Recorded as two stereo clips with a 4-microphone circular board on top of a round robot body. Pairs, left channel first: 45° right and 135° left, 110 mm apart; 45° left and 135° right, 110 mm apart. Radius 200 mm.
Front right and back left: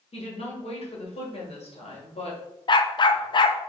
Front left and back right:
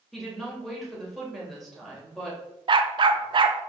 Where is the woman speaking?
45° right, 2.5 m.